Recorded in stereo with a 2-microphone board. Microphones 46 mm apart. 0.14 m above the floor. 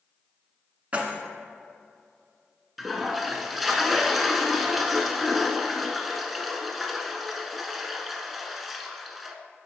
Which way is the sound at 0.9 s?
30° right (ahead or behind).